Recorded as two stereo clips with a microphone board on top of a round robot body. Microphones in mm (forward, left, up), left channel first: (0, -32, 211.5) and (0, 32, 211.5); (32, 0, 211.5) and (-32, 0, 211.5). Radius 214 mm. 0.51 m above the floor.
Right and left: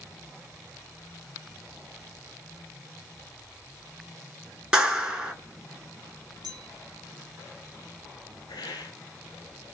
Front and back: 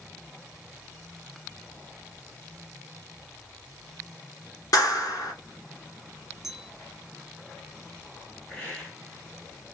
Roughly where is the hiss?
Right.